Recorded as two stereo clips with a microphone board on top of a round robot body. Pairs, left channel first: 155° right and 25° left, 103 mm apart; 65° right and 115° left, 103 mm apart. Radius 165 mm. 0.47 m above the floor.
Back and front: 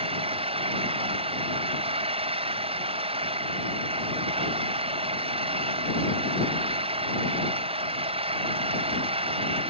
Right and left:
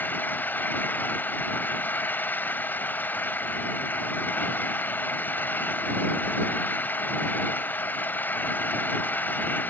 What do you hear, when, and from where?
0.0 s an engine running: 5° left